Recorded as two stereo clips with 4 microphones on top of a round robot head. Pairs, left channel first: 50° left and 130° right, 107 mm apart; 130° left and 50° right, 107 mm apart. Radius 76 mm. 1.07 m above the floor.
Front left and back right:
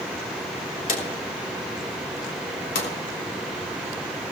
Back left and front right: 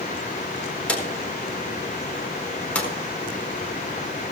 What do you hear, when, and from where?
0.9 s a drawer: 50° left, 4 m